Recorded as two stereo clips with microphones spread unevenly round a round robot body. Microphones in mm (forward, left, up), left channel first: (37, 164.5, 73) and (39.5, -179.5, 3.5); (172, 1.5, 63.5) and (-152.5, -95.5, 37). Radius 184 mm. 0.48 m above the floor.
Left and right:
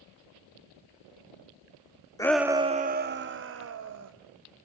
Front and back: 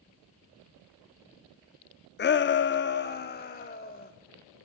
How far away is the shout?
About 0.7 m.